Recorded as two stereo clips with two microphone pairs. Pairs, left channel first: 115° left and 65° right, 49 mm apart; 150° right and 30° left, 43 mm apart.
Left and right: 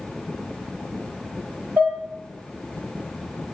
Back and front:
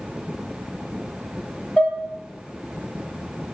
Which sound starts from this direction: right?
Dishes clattering, at 1.8 s.